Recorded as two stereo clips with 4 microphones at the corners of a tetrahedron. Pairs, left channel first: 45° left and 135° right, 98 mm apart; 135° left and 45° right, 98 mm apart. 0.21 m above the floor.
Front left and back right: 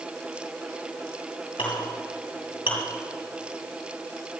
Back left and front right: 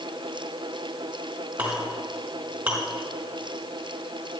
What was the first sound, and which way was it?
A clink, 30° left.